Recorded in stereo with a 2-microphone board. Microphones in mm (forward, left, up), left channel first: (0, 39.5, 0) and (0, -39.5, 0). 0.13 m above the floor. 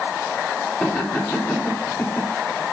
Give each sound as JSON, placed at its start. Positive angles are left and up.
{"t": 0.8, "sound": "laughter", "side_deg": 10, "distance_m": 7.5}